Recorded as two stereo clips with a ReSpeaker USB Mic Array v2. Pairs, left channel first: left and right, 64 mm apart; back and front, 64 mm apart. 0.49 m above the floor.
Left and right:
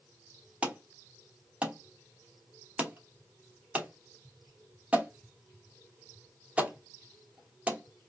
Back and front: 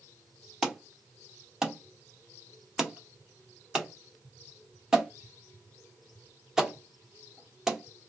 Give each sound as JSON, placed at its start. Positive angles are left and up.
{"t": 0.6, "sound": "an alarm", "azimuth_deg": -65, "distance_m": 0.8}